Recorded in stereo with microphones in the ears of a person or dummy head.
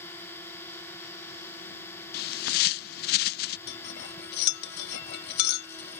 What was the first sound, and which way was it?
A drone, 15° left (ahead or behind).